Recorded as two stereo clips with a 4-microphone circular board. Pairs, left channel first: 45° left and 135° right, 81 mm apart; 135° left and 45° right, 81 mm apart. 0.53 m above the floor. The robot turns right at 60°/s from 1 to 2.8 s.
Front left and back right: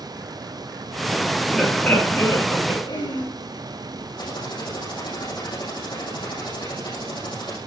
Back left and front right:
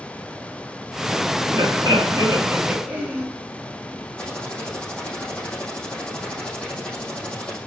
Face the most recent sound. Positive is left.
turn(degrees=60)